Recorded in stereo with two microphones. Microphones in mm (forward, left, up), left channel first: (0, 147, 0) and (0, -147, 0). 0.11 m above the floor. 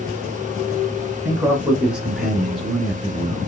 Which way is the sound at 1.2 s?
5° right (ahead or behind).